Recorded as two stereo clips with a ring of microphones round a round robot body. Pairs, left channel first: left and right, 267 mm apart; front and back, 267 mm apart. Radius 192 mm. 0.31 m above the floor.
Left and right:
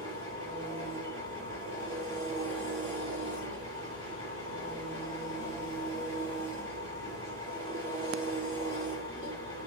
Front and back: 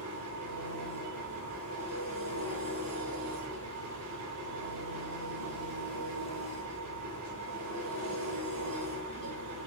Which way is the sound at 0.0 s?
170° left.